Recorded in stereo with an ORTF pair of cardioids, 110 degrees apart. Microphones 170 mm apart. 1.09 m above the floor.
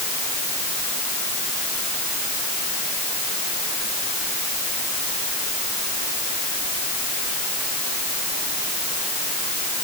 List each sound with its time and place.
Only background noise.